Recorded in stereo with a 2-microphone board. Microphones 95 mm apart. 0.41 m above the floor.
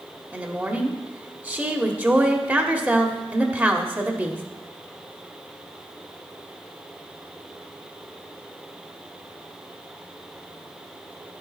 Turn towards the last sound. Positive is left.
turn(degrees=-20)  # may be behind; listen again after turning